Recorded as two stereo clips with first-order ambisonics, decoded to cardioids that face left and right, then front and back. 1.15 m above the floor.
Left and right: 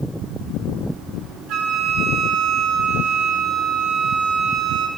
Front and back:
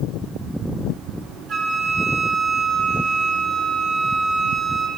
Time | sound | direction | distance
1.5 | a flute | 125° right | 0.8 m